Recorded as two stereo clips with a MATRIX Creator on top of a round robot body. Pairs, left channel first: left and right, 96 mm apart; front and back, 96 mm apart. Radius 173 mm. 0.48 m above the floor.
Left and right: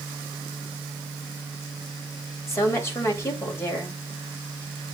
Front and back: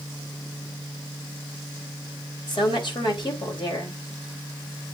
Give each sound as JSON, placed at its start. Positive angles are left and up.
{"t": 2.5, "sound": "a woman speaking", "azimuth_deg": 30, "distance_m": 3.0}